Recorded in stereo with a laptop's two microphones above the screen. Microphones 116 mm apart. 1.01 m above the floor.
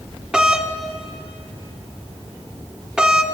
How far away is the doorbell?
About 1.1 m.